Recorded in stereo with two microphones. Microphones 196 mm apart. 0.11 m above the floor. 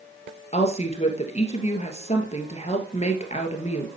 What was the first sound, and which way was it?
A woman speaking, 35° left (ahead or behind).